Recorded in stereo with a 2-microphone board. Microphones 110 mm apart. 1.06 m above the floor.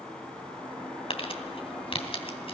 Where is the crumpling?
60° left (ahead or behind), 2.5 m.